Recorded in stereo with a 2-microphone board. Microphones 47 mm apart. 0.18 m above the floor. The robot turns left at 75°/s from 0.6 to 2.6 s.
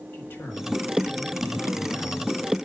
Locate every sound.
0.1 s a man speaking: 105° left, 4.5 m; by 2.7 s 45° right, 4.5 m